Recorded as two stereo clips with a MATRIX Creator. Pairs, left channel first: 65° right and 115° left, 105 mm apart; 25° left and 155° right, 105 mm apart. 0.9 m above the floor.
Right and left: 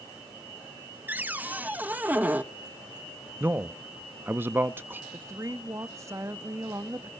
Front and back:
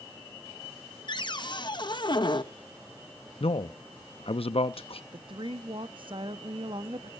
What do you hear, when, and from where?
1.1 s a cupboard door: 45° left, 1.0 m
3.4 s a man speaking: 45° left, 0.7 m
5.1 s a woman speaking: 170° left, 1.2 m